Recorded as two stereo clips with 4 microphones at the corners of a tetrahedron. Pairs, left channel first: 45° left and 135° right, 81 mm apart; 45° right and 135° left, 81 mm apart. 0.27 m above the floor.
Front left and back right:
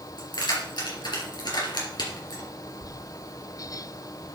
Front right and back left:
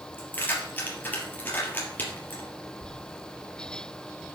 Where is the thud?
95° right, 3 m.